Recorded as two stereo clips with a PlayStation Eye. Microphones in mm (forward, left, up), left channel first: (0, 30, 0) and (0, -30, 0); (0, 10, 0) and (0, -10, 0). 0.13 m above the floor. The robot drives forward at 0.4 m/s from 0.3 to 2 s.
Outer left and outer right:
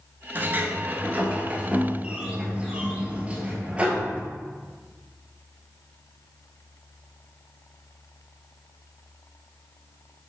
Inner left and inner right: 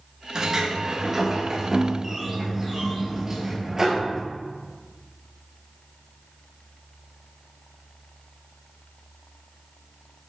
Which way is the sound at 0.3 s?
35° right (ahead or behind).